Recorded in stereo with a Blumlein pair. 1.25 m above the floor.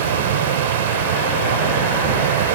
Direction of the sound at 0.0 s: 55° right.